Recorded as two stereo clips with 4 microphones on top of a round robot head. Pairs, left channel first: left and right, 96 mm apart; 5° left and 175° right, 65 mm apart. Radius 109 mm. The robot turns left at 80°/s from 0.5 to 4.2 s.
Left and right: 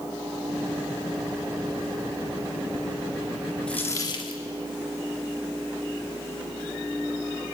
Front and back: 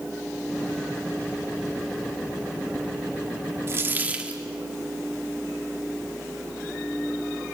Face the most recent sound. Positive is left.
turn(degrees=130)